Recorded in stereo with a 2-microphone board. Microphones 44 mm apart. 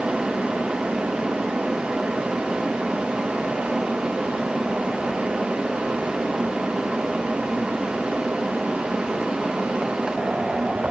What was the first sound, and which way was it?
Only background noise.